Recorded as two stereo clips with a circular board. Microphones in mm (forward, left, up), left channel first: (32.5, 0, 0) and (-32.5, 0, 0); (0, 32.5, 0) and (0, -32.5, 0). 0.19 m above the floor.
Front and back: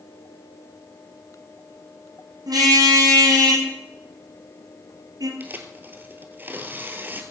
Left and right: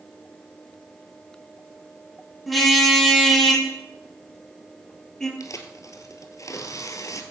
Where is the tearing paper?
120° left, 1.7 m.